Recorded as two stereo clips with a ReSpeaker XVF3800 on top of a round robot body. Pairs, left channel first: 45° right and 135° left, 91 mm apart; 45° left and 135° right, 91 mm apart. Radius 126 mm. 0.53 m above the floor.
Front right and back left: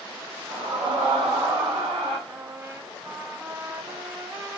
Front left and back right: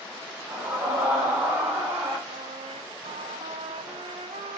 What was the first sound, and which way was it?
A scream, 150° left.